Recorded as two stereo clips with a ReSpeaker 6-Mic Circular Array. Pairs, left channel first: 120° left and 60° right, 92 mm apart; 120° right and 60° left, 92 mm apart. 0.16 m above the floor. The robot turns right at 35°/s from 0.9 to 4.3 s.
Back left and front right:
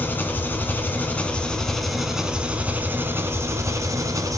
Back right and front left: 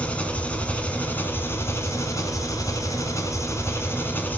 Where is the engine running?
175° left, 1.5 m; by 4.4 s 65° right, 1.5 m.